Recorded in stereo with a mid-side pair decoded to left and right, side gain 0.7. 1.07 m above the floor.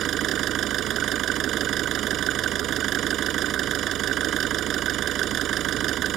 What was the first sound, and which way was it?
An engine running, 50° right.